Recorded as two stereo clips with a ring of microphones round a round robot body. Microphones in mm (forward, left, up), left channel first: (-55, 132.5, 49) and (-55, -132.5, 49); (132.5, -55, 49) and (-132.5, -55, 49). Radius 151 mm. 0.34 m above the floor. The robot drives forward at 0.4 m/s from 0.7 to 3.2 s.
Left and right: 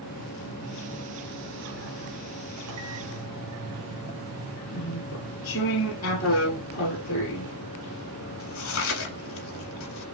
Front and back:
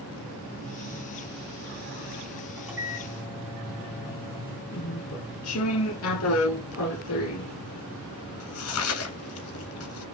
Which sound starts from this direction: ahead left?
Chewing, at 4.7 s.